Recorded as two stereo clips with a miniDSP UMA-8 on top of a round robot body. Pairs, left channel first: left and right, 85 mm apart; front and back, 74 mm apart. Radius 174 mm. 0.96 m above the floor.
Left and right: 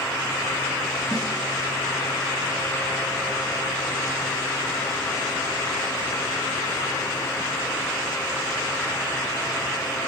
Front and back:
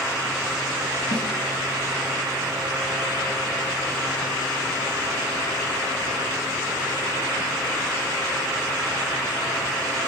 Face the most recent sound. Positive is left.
turn(degrees=-10)